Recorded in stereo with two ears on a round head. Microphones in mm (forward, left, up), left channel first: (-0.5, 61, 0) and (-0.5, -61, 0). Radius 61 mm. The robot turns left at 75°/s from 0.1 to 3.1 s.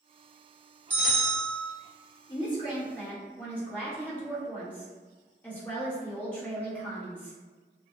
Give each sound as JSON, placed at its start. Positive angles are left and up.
{"t": 0.9, "sound": "a bell", "azimuth_deg": -165, "distance_m": 1.1}
{"t": 2.3, "sound": "a woman speaking", "azimuth_deg": 75, "distance_m": 1.2}